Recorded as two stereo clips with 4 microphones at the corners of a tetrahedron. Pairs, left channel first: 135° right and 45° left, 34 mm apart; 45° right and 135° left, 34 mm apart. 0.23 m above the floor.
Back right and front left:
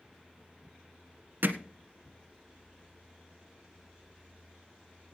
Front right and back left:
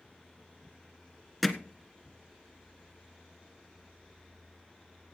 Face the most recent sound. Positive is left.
turn(degrees=50)